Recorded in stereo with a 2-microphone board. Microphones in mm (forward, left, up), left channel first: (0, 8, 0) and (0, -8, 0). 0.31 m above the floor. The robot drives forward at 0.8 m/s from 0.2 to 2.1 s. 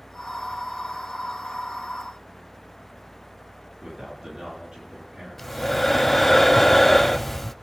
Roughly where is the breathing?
Centre.